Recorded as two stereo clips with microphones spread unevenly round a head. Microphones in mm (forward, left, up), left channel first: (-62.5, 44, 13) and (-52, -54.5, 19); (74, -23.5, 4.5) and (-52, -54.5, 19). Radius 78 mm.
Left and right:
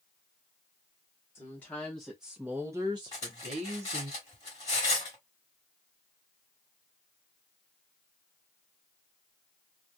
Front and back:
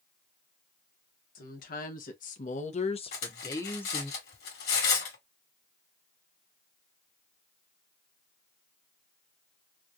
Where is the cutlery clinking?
30° left, 1.5 m.